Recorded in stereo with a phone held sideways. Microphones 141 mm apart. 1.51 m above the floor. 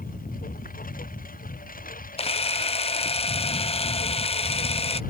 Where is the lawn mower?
80° left.